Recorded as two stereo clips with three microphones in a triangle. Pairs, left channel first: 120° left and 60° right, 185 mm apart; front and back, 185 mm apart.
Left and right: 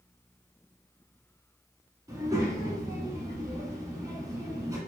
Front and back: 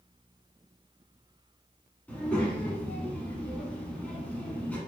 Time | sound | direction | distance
2.1 | a child speaking | 65° right | 0.7 m